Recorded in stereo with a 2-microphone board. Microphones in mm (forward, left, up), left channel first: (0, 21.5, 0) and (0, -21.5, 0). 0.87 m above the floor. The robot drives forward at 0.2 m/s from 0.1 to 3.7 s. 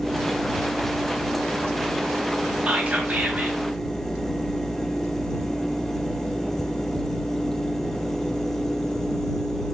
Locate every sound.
2.7 s whispering: 30° right (ahead or behind), 0.7 m; by 3.6 s 40° right (ahead or behind), 0.6 m